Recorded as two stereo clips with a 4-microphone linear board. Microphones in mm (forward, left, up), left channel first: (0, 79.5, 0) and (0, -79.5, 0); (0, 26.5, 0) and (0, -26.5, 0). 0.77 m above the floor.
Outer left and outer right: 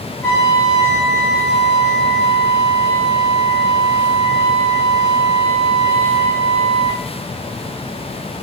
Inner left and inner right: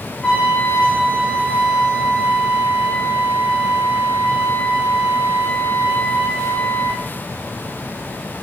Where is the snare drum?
I don't hear a snare drum.